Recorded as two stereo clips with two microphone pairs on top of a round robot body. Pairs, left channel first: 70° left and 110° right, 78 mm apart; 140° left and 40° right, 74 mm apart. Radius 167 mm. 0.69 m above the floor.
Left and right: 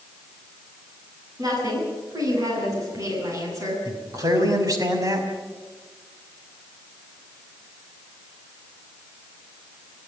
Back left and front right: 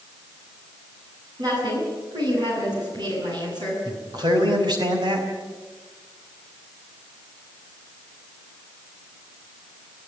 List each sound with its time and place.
1.4 s a woman speaking: 70° right, 9.5 m; by 3.8 s 65° right, 9 m
3.9 s a man speaking: 65° right, 5.5 m